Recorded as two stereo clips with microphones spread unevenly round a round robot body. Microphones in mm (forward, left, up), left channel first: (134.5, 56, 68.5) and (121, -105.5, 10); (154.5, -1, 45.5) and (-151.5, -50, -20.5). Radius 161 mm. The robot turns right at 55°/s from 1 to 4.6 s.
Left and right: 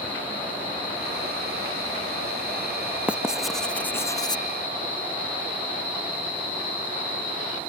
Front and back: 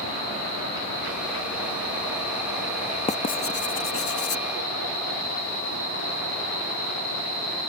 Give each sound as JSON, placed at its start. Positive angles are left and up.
{"t": 3.1, "sound": "writing", "azimuth_deg": -65}